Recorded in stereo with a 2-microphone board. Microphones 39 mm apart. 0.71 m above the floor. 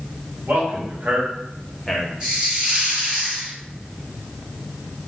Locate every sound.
0.5 s a man speaking: 60° right (ahead or behind), 1.6 m; by 2.1 s 20° left (ahead or behind), 0.8 m
2.2 s a hiss: 25° right (ahead or behind), 1.5 m